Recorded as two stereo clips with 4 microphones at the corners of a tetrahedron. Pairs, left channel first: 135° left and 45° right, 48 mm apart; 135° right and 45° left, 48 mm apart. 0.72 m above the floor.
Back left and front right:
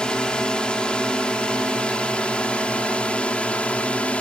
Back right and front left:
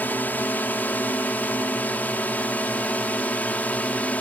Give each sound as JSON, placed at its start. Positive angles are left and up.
{"t": 0.0, "sound": "a drone", "azimuth_deg": -160}